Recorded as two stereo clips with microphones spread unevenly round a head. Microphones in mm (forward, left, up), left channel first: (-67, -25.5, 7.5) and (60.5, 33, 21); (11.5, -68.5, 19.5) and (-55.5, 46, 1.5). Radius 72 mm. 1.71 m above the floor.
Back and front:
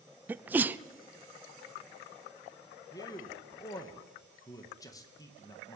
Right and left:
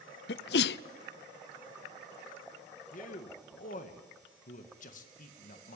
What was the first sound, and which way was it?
A sneeze, 55° right.